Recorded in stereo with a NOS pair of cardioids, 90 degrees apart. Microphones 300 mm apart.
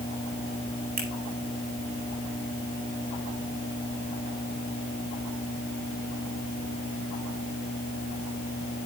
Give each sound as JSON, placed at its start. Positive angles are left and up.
{"t": 1.0, "sound": "a finger snap", "azimuth_deg": -60, "distance_m": 9.0}